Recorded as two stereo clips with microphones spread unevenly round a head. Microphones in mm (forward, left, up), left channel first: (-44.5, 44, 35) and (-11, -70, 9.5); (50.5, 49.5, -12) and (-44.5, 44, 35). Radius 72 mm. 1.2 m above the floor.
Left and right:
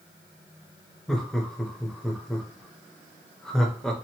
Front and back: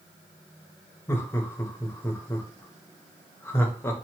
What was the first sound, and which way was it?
Laughter, 10° left.